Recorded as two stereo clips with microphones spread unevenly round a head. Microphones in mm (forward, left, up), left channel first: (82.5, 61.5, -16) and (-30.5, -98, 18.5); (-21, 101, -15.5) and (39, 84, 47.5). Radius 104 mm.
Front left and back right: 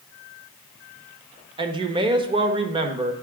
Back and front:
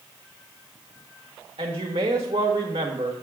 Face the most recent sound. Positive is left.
turn(degrees=-60)